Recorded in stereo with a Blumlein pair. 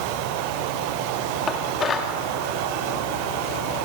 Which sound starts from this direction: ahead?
Dishes clattering, at 1.5 s.